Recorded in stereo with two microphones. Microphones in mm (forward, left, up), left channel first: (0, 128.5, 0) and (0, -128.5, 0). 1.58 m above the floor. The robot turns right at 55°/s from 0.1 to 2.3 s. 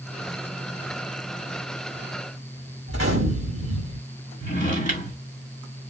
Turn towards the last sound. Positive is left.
turn(degrees=30)  # may be behind; listen again after turning